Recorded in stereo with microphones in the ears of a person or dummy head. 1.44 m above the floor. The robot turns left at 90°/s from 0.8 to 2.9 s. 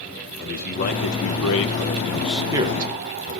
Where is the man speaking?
135° left, 0.9 m; by 3.4 s 50° right, 0.9 m.